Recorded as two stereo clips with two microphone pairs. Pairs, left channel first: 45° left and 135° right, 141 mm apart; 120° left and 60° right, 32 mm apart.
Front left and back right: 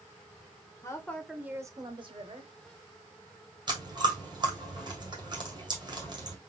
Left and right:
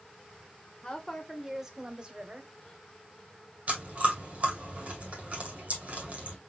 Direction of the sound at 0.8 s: 75° left.